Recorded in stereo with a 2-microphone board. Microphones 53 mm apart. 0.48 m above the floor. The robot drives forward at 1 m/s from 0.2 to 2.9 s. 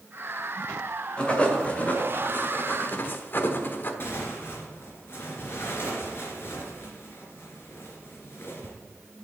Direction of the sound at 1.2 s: 25° left (ahead or behind).